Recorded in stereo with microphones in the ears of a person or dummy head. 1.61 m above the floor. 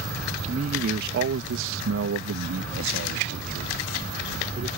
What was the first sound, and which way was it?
A man speaking, 40° right (ahead or behind).